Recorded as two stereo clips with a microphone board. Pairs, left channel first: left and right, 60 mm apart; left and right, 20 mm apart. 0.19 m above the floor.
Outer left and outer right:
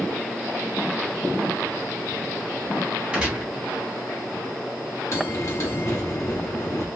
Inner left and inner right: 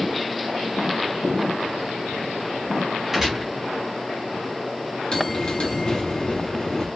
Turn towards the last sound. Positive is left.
turn(degrees=50)  # may be behind; listen again after turning